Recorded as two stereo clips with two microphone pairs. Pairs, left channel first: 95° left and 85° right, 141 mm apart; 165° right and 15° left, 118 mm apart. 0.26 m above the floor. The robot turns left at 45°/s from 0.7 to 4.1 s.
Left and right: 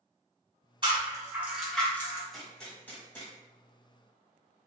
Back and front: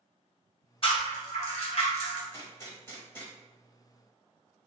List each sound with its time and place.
0.8 s a rattle: 135° right, 1.5 m; by 2.2 s 165° left, 1.5 m
2.3 s a gunshot: 175° right, 1.4 m; by 3.3 s 140° left, 1.4 m